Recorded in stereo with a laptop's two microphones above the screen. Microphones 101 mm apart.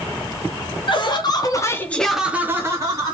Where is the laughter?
50° left (ahead or behind), 1.2 m; by 3.1 s 40° right (ahead or behind), 1.3 m.